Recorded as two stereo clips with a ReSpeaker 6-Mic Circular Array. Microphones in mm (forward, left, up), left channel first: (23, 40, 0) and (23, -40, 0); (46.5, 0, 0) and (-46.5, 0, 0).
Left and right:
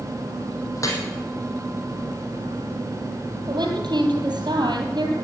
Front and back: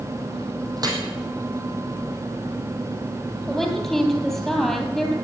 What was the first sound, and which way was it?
Dripping, 135° left.